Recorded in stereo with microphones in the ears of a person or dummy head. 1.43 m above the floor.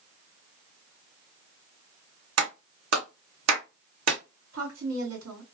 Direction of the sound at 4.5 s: 85° right.